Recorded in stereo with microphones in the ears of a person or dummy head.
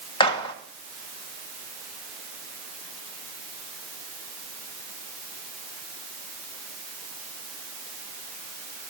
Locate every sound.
0.2 s a gunshot: 20° left (ahead or behind), 1.7 m